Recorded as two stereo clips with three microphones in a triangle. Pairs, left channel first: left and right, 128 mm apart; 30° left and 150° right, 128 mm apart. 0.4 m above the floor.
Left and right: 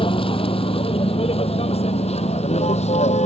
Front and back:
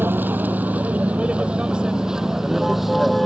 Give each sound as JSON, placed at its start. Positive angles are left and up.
{"t": 0.0, "sound": "a vehicle", "azimuth_deg": 135}